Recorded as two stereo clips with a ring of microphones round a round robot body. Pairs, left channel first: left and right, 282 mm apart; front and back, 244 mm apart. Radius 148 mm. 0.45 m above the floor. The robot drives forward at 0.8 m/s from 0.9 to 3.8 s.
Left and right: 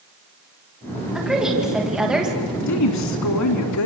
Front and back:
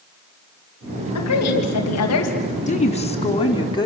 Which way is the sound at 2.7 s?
60° left.